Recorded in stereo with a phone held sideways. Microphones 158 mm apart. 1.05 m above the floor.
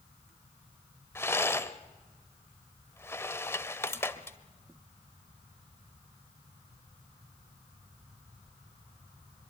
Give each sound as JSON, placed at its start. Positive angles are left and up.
{"t": 1.1, "sound": "a rattle", "side_deg": 15, "distance_m": 0.9}